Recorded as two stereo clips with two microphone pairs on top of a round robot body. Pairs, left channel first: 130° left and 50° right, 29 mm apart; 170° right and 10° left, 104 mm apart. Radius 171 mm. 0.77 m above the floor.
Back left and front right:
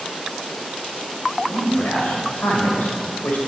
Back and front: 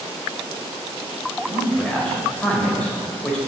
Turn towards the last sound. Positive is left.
turn(degrees=110)